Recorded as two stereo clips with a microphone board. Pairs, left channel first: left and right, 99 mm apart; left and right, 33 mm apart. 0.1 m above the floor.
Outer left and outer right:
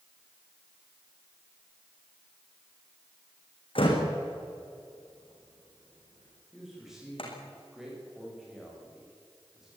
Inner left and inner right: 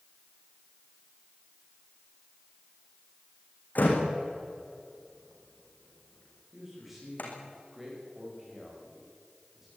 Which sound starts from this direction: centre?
A man speaking, at 6.5 s.